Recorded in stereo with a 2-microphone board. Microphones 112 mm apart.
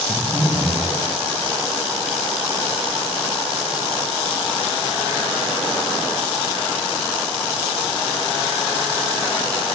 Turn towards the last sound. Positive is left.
turn(degrees=5)  # may be behind; listen again after turning